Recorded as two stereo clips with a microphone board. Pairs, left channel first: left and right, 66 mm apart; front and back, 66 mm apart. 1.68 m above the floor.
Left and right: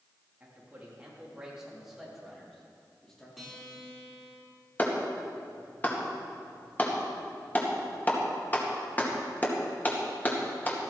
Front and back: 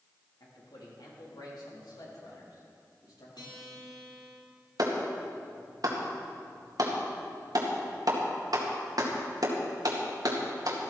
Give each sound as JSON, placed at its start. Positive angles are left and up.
{"t": 0.4, "sound": "a man speaking", "azimuth_deg": -25, "distance_m": 4.0}
{"t": 3.4, "sound": "a guitar", "azimuth_deg": 0, "distance_m": 4.5}
{"t": 4.8, "sound": "a clap", "azimuth_deg": 155, "distance_m": 2.0}